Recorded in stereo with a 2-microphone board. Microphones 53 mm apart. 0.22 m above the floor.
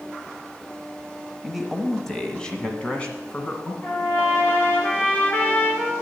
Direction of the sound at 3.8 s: 35° left (ahead or behind).